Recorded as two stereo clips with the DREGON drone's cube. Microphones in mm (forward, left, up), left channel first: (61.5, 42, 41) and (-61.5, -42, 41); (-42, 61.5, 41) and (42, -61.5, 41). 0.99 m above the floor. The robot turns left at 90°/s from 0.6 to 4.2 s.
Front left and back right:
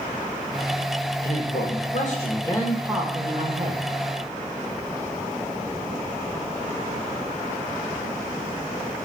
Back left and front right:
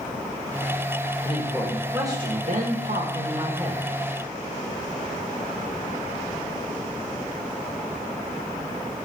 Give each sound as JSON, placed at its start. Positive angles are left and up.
{"t": 1.2, "sound": "a man speaking", "azimuth_deg": 85, "distance_m": 1.4}